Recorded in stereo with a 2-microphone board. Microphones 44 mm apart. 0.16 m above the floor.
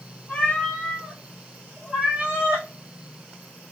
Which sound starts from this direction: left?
A cat meowing, at 0.3 s.